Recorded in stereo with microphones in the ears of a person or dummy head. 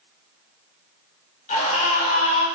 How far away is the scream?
About 6 m.